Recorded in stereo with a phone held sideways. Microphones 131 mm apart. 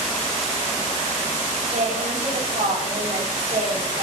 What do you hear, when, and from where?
1.7 s a woman speaking: 70° right (ahead or behind), 7.5 m